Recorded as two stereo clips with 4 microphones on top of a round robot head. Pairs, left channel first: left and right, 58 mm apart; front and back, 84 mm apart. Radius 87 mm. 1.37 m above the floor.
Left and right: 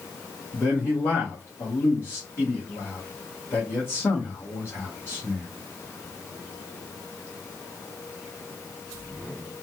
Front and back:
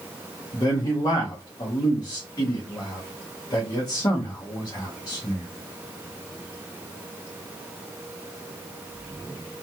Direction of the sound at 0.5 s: 40° left.